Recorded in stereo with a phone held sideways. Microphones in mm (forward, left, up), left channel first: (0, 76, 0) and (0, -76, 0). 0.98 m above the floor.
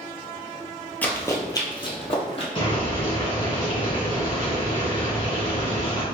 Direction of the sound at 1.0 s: 10° left (ahead or behind).